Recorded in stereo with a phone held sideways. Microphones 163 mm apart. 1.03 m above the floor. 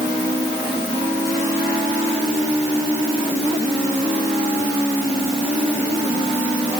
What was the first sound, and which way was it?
Only background noise.